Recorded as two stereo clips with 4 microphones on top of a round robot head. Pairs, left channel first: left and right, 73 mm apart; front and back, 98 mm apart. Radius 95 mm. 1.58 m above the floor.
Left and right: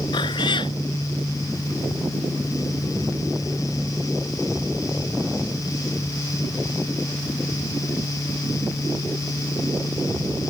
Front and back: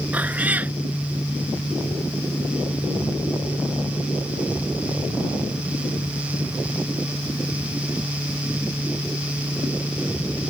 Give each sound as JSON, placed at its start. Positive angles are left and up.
{"t": 0.1, "sound": "a cat meowing", "azimuth_deg": 105}